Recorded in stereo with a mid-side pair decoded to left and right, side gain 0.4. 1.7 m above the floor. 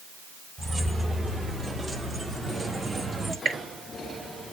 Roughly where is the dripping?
Ahead right.